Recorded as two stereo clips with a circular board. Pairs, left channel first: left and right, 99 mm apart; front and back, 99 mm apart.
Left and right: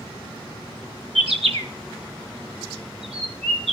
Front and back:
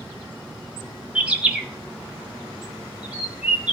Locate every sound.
1.1 s a bird: 100° right, 1.1 m